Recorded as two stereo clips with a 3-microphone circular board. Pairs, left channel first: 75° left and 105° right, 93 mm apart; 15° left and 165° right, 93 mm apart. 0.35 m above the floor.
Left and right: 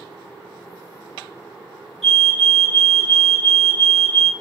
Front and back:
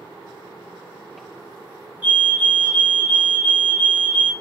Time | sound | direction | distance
2.0 | a fire alarm | 160° left | 1.8 m